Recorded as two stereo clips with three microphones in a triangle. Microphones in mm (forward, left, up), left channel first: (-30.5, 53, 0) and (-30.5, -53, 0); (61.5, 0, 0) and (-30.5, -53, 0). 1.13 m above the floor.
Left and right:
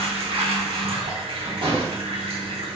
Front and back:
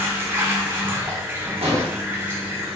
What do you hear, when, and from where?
0.0 s running water: 85° right, 1.0 m
1.6 s an explosion: 125° right, 1.6 m